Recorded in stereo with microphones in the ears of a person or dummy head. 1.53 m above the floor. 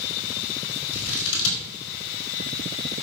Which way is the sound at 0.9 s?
75° left (ahead or behind).